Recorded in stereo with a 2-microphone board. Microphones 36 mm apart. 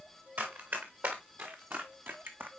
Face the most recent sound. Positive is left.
turn(degrees=-75)  # may be behind; listen again after turning